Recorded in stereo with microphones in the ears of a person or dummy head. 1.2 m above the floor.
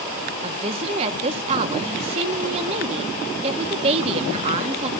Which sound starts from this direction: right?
A woman speaking, at 0.4 s.